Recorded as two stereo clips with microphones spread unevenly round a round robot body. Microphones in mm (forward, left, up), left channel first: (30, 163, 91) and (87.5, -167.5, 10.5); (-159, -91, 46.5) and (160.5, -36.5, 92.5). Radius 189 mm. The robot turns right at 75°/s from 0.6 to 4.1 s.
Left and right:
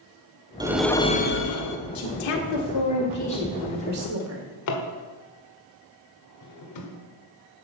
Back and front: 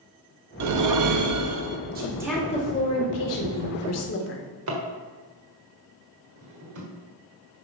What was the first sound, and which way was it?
A whoosh, 20° right.